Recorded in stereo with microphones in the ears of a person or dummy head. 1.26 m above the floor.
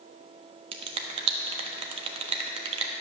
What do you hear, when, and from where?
0.7 s a finger snap: 30° right (ahead or behind), 1.0 m